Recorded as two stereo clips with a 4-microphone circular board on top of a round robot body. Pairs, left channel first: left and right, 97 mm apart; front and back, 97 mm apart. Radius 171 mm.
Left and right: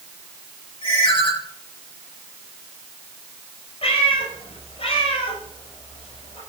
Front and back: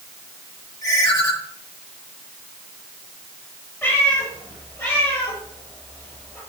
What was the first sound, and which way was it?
A ringtone, 55° left.